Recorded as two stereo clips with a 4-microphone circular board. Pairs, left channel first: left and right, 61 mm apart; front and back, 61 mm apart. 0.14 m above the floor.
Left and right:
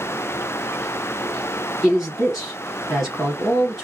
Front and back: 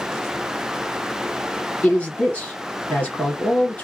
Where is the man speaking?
15° right, 1.1 m.